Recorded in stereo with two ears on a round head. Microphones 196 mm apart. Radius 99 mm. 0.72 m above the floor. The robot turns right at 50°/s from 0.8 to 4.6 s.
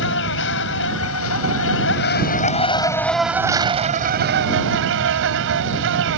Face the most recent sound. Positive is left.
turn(degrees=-110)